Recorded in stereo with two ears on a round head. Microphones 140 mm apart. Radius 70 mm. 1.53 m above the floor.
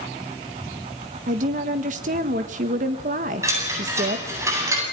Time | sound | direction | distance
1.3 | a woman speaking | 50° right (ahead or behind) | 1.4 m
3.4 | a chime | 20° right (ahead or behind) | 9.5 m